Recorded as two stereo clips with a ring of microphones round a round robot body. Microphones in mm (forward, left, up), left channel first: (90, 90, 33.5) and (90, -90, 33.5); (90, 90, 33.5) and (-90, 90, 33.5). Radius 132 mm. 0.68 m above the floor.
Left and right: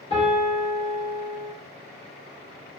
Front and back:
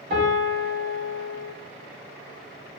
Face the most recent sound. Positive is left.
turn(degrees=155)